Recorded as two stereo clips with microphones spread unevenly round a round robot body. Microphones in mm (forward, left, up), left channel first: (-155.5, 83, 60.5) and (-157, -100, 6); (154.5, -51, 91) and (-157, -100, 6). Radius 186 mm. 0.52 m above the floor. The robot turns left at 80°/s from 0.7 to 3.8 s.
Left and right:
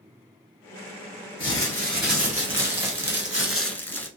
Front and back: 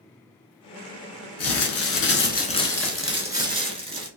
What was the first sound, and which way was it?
Crumpling, 20° left.